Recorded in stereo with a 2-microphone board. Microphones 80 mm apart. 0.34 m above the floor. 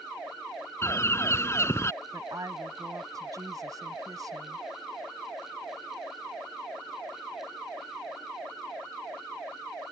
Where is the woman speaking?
50° right (ahead or behind).